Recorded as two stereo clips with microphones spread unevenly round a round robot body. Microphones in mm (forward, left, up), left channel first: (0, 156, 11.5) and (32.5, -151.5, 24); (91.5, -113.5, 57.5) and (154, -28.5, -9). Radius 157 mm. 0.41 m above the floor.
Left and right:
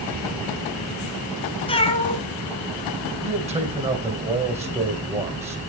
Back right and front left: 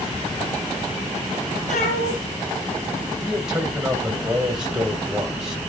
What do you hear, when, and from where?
1.7 s a cat meowing: 170° left, 1.4 m
3.2 s a man speaking: 15° right, 2.5 m